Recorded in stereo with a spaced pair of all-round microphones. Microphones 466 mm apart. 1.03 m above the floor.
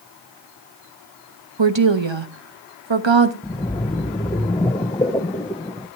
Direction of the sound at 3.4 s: 10° left (ahead or behind).